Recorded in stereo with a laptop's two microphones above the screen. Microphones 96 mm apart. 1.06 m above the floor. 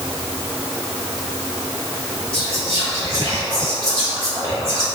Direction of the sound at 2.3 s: 30° right (ahead or behind).